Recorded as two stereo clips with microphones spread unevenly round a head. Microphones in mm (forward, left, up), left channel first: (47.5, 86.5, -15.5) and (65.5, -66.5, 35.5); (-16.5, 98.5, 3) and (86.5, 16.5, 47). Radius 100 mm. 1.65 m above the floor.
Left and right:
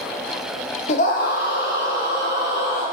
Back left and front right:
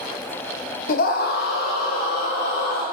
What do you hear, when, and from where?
0.9 s a scream: 155° left, 0.6 m; by 2.9 s 150° left, 2.5 m